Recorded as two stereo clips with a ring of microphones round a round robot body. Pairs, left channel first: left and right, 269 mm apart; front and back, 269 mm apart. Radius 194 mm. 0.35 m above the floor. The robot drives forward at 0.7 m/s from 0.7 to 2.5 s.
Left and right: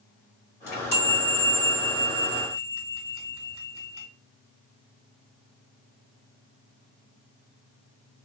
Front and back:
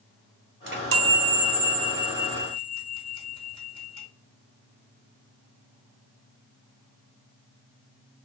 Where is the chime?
145° left, 1.8 m; by 4.1 s 160° left, 3 m.